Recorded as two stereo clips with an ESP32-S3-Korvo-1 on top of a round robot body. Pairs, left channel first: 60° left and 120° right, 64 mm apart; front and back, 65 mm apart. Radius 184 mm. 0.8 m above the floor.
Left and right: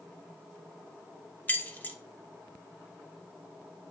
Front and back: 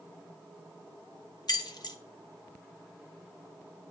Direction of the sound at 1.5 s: 5° right.